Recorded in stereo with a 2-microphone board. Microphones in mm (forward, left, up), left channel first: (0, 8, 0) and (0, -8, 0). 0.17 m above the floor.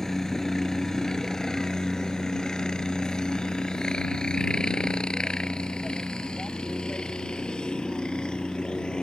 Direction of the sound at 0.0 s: 25° left (ahead or behind).